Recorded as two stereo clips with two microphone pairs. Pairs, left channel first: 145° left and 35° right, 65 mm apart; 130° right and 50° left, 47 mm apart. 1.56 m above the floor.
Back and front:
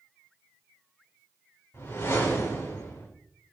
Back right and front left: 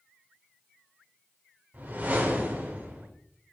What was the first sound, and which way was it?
A whoosh, 90° left.